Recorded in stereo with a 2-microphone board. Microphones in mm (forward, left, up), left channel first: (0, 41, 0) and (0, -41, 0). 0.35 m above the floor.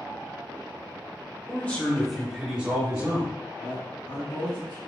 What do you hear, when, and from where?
1.5 s a man speaking: 25° left (ahead or behind), 1.1 m; by 3.3 s 35° right (ahead or behind), 1.2 m
3.6 s a woman speaking: 65° left (ahead or behind), 1.9 m